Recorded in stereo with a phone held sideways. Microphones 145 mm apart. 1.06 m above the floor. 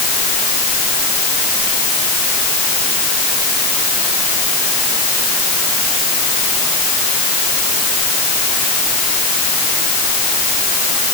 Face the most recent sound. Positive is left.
No sound to turn to.